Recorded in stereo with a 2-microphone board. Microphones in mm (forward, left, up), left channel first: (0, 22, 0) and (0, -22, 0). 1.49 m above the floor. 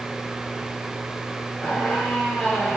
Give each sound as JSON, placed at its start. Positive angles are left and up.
{"t": 1.6, "sound": "a squeak", "side_deg": 20, "distance_m": 0.8}